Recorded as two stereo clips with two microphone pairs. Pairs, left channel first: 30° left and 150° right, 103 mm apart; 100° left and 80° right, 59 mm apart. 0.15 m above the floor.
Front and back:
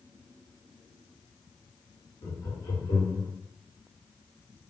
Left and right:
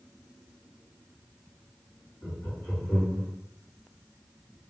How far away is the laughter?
About 1.5 m.